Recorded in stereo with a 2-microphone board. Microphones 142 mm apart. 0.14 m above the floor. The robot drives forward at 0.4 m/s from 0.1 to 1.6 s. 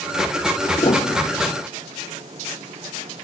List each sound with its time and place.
0.8 s a piano: 40° left (ahead or behind); by 1.6 s 45° left (ahead or behind)